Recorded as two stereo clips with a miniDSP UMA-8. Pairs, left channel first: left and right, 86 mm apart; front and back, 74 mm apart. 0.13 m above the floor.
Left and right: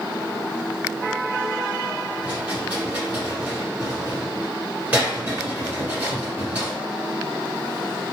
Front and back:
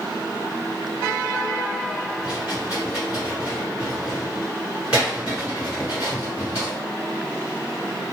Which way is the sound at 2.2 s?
130° right.